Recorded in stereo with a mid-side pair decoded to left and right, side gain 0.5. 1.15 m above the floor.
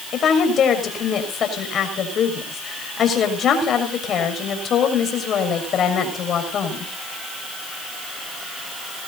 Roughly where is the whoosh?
I don't hear a whoosh.